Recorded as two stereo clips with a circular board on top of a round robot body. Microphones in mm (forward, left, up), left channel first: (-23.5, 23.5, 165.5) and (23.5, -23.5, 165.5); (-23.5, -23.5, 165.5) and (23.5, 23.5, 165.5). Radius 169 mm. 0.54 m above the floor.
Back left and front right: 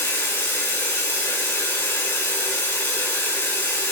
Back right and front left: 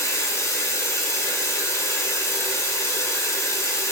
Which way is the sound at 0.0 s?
170° right.